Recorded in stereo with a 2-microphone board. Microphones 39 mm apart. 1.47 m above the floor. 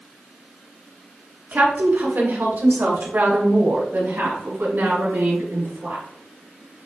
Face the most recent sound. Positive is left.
turn(degrees=-65)  # may be behind; listen again after turning